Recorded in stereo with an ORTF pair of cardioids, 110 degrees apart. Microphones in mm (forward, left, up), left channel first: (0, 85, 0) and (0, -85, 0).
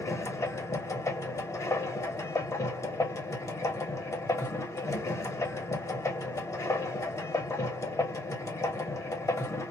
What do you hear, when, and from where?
0.0 s a machine running: 20° left, 0.8 m